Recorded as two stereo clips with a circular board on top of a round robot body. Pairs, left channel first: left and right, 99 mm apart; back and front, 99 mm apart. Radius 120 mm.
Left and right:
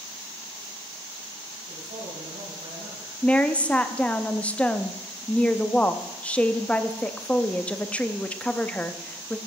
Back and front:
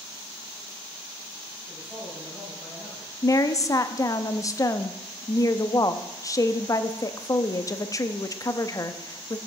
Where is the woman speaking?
160° left, 0.8 m.